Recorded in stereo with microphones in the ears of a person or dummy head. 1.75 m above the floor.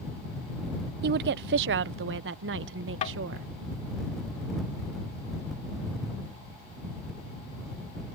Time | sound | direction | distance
1.0 | a woman speaking | 55° right (ahead or behind) | ?
3.0 | tapping | 35° left (ahead or behind) | ?